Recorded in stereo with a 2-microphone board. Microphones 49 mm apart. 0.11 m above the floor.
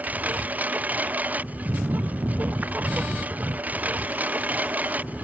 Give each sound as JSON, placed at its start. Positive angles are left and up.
{"t": 0.0, "sound": "a lawn mower", "side_deg": -35}